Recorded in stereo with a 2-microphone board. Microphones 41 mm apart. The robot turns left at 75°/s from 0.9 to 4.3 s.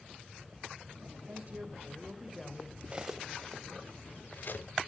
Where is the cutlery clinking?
25° right (ahead or behind), 0.8 m; by 4.7 s 60° left (ahead or behind), 0.8 m.